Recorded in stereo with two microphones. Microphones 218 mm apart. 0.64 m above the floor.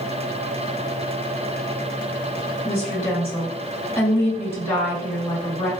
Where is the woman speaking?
10° left (ahead or behind), 1.5 m.